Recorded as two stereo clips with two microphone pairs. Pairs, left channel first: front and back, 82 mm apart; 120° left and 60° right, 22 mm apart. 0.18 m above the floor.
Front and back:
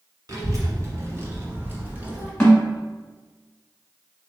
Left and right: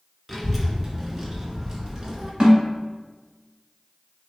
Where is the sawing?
I don't hear sawing.